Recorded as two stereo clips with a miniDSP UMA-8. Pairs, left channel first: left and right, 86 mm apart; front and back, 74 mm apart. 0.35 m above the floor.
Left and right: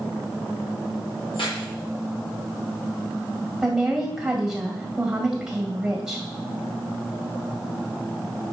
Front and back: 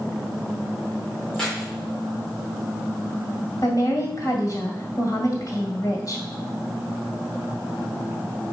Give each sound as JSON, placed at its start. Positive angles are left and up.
{"t": 1.3, "sound": "keys jangling", "azimuth_deg": 80, "distance_m": 3.5}
{"t": 3.6, "sound": "a woman speaking", "azimuth_deg": -10, "distance_m": 1.9}